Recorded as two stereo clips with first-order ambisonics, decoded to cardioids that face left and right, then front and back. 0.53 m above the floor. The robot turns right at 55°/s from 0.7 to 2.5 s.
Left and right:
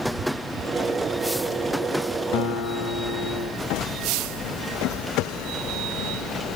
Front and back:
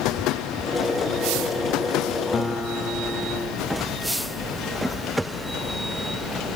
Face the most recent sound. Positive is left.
turn(degrees=70)